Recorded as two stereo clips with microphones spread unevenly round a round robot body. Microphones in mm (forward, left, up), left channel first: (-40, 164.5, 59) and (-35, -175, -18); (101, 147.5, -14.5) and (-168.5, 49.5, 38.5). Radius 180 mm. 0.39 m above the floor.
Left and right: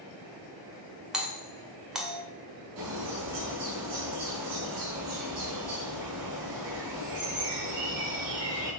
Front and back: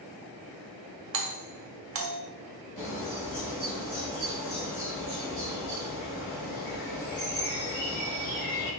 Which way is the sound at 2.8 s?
50° right.